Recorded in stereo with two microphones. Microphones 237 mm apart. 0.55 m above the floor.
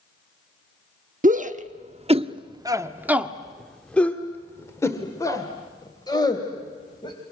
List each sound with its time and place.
1.2 s a shout: 35° right (ahead or behind), 1.1 m; by 7.2 s 20° left (ahead or behind), 3 m